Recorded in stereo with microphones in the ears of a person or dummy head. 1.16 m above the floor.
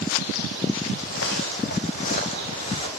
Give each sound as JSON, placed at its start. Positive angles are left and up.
{"t": 1.0, "sound": "footsteps", "side_deg": 65, "distance_m": 2.5}